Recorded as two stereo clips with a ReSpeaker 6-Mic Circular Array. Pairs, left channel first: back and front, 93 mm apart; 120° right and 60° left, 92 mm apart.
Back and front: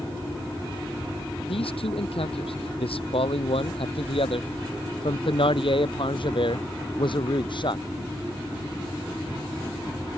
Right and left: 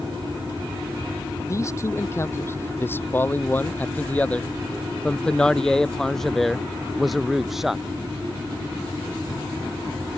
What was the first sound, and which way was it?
A man speaking, 175° right.